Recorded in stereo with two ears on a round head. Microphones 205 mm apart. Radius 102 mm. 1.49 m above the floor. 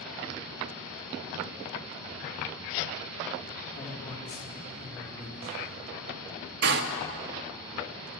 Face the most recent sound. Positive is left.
turn(degrees=-50)  # may be behind; listen again after turning